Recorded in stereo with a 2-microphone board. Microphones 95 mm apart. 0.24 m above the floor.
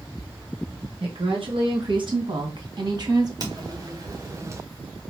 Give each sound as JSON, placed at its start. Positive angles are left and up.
{"t": 1.0, "sound": "a woman speaking", "side_deg": -60, "distance_m": 3.5}
{"t": 3.4, "sound": "footsteps", "side_deg": -45, "distance_m": 1.8}